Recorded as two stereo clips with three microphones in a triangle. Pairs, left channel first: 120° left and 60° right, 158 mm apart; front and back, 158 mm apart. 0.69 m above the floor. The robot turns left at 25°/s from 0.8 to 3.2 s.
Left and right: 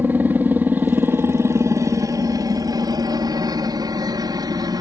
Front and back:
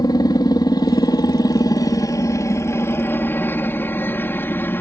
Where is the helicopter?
Straight ahead; by 4.8 s 60° right.